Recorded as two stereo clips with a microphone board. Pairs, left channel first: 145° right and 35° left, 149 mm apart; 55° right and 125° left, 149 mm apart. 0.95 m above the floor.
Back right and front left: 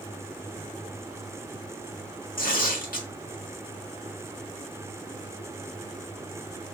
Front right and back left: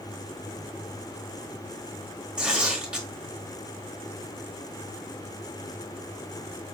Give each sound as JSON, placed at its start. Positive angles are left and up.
{"t": 2.4, "sound": "tearing paper", "azimuth_deg": -155, "distance_m": 1.6}